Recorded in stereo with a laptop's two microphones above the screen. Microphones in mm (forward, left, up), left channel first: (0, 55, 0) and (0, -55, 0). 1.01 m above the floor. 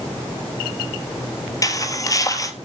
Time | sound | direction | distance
1.6 | footsteps | 30° left (ahead or behind) | 1.6 m